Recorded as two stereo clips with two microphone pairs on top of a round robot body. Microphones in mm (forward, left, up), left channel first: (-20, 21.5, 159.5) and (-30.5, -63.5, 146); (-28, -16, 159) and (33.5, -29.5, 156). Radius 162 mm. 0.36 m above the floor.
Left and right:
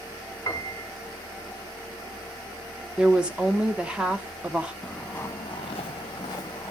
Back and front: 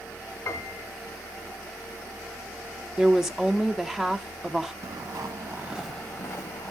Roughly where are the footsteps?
Ahead.